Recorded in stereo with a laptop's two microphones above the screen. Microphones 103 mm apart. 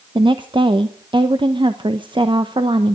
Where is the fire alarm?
I don't hear a fire alarm.